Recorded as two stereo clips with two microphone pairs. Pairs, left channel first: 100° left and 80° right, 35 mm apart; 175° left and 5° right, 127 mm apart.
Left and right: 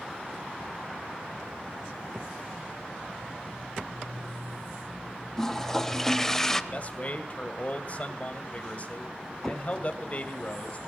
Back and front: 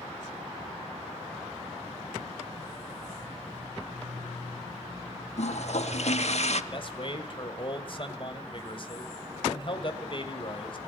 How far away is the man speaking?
About 2.0 m.